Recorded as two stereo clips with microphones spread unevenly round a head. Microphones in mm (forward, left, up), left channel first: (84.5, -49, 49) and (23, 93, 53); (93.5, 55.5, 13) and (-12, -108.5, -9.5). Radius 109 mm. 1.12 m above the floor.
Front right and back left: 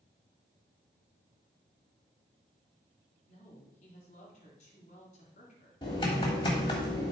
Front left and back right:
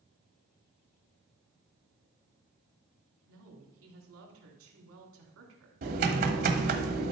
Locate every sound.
3.3 s a woman speaking: 120° right, 2.5 m
5.8 s typing on a keyboard: 125° right, 1.1 m